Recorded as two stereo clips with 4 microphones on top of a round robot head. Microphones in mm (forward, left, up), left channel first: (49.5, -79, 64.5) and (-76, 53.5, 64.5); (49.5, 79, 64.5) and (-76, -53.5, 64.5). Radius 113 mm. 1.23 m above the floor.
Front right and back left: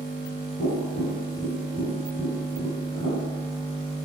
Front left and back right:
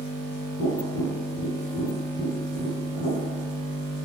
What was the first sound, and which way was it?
Tapping, 5° left.